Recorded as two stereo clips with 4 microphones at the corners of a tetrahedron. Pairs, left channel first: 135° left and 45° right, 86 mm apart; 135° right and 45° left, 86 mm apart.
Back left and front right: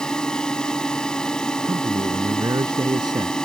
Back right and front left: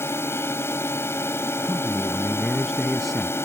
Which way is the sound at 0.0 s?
150° right.